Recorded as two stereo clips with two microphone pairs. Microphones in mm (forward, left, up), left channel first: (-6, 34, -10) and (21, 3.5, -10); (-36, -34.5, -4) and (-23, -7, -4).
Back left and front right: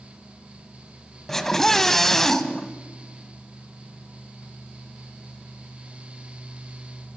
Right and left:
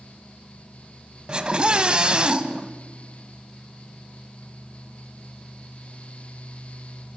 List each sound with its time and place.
1.3 s a scream: 60° left, 1.2 m